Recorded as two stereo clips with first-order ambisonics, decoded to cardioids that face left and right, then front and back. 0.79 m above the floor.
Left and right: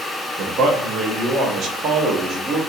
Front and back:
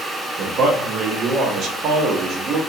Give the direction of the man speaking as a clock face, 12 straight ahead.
5 o'clock.